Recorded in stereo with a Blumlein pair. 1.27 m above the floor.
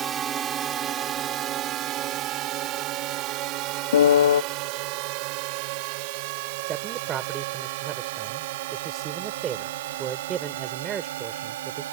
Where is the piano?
65° left.